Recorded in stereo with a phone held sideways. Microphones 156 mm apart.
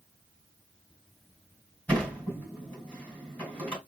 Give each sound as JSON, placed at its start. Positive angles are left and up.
{"t": 1.9, "sound": "a sliding door", "side_deg": 10, "distance_m": 2.5}